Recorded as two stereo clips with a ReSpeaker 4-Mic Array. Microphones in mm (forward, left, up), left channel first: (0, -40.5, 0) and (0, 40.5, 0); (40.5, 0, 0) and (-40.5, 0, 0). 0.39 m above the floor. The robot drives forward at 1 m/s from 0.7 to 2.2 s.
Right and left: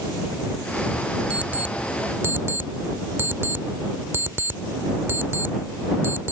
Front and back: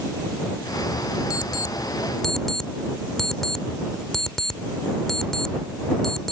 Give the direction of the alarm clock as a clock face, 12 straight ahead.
11 o'clock.